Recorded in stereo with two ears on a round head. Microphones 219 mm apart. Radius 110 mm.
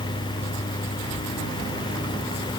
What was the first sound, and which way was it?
Only background noise.